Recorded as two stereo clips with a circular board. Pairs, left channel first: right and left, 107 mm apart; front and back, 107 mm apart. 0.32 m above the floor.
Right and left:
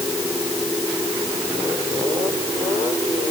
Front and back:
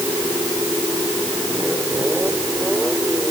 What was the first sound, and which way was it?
Only background noise.